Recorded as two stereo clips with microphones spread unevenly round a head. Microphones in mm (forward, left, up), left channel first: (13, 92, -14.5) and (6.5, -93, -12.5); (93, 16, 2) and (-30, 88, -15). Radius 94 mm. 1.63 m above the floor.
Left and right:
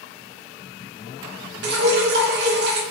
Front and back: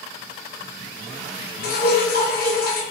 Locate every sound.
1.6 s dripping: 60° right, 0.8 m